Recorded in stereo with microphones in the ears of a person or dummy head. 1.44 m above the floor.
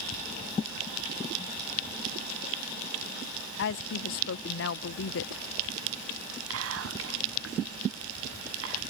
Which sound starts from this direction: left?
A woman speaking, at 3.6 s.